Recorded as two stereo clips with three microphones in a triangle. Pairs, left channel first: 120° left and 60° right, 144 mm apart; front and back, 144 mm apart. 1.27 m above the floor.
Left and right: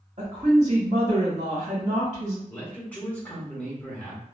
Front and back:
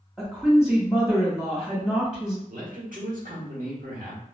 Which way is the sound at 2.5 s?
160° right.